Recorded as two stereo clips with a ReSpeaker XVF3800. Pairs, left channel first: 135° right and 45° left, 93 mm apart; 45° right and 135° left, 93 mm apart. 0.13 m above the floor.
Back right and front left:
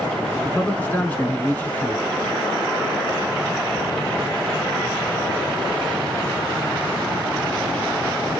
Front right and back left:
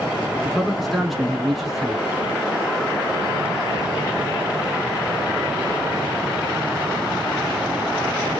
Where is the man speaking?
135° right, 1.0 m.